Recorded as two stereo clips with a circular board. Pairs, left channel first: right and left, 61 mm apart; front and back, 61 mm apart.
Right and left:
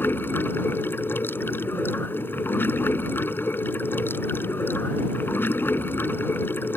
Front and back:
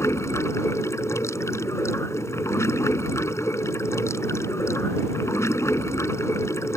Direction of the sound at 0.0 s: 35° right.